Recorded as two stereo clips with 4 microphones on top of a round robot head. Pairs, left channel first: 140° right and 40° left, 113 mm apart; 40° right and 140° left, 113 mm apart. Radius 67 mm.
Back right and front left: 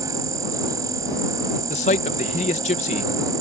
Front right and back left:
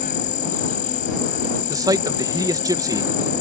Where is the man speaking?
160° right.